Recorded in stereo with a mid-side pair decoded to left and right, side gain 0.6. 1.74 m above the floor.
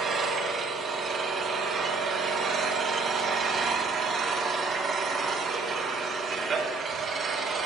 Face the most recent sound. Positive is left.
turn(degrees=-40)